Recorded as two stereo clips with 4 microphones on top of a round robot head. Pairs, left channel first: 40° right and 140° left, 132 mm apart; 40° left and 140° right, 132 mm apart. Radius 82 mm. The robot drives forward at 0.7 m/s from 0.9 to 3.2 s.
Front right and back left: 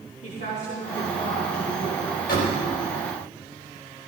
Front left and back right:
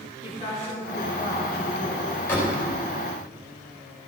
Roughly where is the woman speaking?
Ahead.